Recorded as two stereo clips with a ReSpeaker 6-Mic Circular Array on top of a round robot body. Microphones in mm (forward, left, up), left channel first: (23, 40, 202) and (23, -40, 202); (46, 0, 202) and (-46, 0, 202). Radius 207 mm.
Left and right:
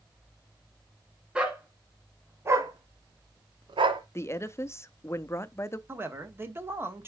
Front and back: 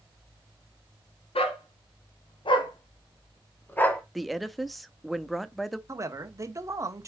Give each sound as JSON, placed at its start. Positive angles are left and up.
{"t": 1.4, "sound": "a dog barking", "azimuth_deg": -10, "distance_m": 1.6}
{"t": 4.2, "sound": "a woman speaking", "azimuth_deg": 90, "distance_m": 0.9}
{"t": 5.9, "sound": "a man speaking", "azimuth_deg": -140, "distance_m": 1.5}